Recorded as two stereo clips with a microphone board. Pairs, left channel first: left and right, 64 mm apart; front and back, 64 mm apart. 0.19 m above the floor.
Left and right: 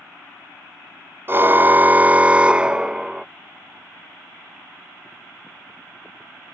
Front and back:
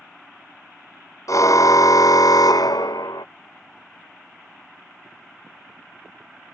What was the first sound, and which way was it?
A car horn, 35° right.